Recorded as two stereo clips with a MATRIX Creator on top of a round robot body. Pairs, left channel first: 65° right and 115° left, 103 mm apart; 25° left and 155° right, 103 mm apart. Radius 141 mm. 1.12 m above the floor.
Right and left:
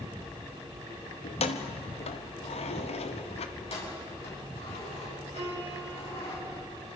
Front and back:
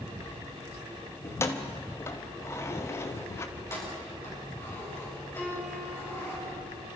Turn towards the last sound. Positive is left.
turn(degrees=100)